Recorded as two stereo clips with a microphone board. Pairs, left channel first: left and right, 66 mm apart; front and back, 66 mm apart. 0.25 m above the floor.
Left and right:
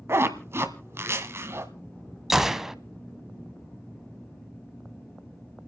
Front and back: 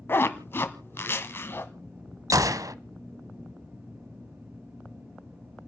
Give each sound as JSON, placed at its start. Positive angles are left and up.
{"t": 0.1, "sound": "a zipper", "azimuth_deg": -50, "distance_m": 1.4}
{"t": 2.3, "sound": "a gunshot", "azimuth_deg": -170, "distance_m": 0.6}